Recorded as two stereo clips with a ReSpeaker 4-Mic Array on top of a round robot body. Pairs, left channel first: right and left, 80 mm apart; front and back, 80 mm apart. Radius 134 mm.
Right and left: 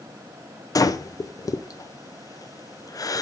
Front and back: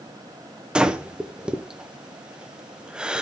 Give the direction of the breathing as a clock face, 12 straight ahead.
3 o'clock.